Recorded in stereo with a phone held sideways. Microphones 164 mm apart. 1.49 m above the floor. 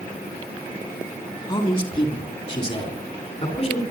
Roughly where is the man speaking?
Left.